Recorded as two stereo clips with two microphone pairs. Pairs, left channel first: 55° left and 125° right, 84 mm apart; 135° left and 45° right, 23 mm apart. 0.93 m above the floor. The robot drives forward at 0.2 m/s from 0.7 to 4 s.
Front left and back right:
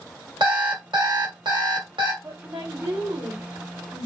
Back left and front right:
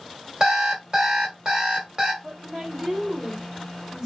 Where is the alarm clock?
95° right, 1.9 m; by 2.1 s 105° right, 1.9 m.